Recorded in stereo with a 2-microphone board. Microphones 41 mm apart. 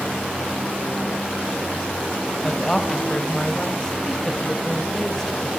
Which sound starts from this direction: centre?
A woman speaking, at 2.4 s.